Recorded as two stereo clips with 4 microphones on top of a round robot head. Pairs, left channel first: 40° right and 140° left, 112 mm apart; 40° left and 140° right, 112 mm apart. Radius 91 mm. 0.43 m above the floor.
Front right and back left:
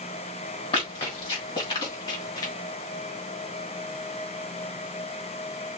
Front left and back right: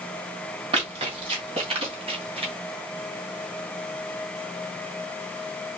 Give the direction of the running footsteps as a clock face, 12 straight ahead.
3 o'clock.